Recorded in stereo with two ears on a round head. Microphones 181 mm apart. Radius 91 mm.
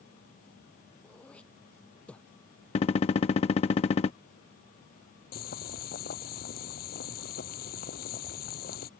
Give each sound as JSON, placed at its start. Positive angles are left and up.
{"t": 1.0, "sound": "throat clearing", "side_deg": 5}
{"t": 2.8, "sound": "a gunshot", "side_deg": 30}
{"t": 5.3, "sound": "boiling", "side_deg": 50}